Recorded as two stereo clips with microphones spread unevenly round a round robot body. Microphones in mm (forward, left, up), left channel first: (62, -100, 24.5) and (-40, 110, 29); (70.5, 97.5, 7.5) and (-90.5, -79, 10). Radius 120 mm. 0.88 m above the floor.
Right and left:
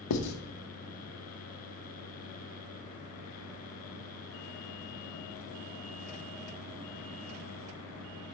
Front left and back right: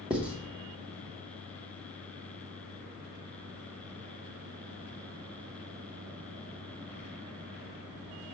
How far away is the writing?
About 0.9 m.